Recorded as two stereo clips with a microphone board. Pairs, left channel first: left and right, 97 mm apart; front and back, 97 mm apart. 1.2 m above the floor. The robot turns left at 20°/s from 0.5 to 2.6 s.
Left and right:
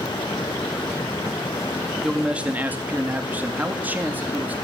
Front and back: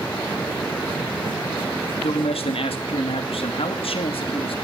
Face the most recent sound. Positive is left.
turn(degrees=-20)